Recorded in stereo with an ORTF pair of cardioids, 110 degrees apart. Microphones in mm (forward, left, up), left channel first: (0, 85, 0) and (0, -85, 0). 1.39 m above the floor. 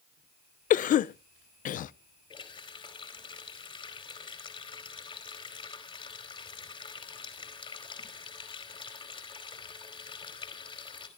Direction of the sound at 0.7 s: 50° left.